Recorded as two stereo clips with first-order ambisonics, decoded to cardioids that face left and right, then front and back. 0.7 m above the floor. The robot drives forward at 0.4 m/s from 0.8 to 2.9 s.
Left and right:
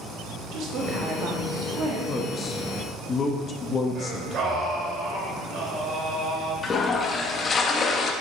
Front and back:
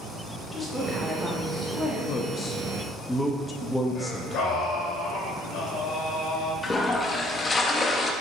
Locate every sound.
0.5 s a woman speaking: 75° right, 1.3 m; by 2.0 s 105° right, 1.3 m
2.1 s a man speaking: 30° left, 0.6 m; by 4.7 s 80° left, 0.5 m
4.0 s singing: 40° right, 1.8 m
6.6 s a toilet flushing: 55° left, 0.5 m